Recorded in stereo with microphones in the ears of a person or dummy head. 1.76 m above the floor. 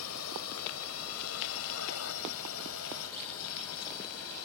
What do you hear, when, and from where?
0.0 s a drone: 85° left